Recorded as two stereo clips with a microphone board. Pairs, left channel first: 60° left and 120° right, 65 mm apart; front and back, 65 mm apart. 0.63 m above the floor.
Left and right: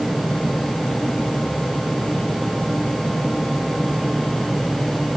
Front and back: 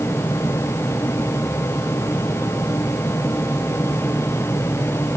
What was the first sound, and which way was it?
Only background noise.